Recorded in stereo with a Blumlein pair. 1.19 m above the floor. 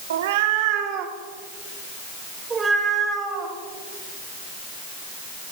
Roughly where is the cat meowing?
Ahead right.